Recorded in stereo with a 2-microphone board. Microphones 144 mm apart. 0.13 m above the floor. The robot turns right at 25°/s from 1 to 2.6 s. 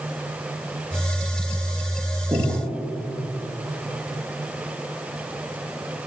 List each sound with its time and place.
2.3 s breathing: 20° right (ahead or behind), 6.5 m; by 2.6 s 15° right (ahead or behind), 6.5 m